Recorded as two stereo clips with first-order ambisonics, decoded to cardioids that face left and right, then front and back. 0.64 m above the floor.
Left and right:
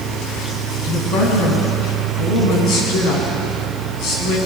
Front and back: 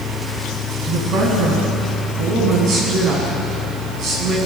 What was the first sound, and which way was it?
A woman speaking, 130° left.